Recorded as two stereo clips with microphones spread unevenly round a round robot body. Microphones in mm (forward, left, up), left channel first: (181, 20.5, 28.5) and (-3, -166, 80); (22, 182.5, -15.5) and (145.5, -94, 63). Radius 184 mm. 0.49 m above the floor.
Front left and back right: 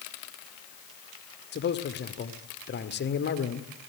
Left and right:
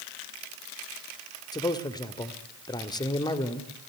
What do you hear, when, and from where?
1.5 s a man speaking: 55° left, 1.9 m